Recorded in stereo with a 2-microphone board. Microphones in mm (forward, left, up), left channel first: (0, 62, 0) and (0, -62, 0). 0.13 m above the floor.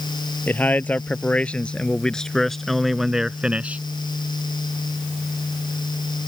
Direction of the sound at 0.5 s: 15° left (ahead or behind).